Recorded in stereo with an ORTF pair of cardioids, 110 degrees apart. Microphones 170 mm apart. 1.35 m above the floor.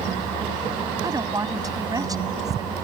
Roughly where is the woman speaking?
Ahead.